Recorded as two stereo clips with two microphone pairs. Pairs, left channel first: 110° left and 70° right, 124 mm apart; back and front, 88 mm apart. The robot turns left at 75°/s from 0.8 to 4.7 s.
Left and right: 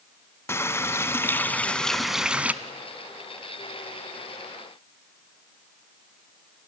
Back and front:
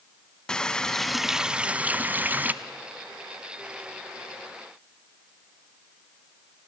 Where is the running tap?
110° left, 0.7 m; by 2.5 s 20° right, 0.7 m.